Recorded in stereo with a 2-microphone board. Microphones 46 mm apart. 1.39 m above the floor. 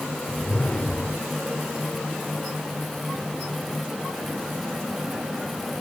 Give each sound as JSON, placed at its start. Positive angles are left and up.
{"t": 0.3, "sound": "a whoosh", "side_deg": 25, "distance_m": 1.6}